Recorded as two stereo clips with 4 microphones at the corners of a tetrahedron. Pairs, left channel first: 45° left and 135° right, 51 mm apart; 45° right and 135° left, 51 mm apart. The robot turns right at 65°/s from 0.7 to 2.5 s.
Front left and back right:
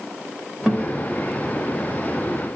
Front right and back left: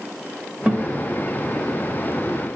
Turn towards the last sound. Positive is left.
turn(degrees=-90)